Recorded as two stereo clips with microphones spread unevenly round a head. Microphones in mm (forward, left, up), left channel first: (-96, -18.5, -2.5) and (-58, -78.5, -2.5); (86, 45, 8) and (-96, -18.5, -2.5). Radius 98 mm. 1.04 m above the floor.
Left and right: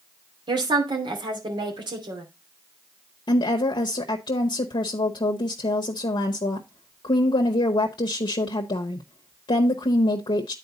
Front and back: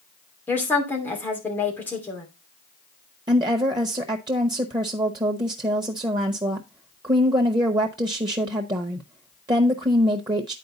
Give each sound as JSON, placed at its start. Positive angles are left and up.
{"t": 0.5, "sound": "a woman speaking", "azimuth_deg": -60, "distance_m": 2.5}
{"t": 3.3, "sound": "a woman speaking", "azimuth_deg": 130, "distance_m": 0.8}